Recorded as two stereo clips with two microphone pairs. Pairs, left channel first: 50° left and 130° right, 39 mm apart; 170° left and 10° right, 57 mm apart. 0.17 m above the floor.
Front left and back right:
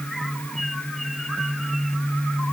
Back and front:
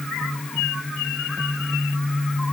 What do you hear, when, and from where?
Only background noise.